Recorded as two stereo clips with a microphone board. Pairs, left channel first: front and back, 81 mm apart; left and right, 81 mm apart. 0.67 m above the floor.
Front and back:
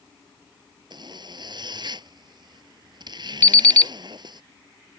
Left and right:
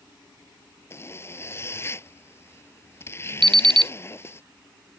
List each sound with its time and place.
0.9 s a zipper: 150° left
3.4 s an alarm clock: 70° right